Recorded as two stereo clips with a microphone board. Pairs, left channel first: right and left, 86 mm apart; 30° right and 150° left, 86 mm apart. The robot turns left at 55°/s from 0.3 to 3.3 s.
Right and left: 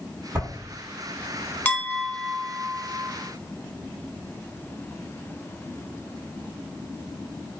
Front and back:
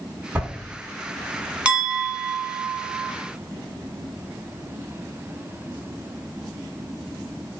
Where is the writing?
115° left, 1.7 m; by 0.5 s 110° left, 1.7 m.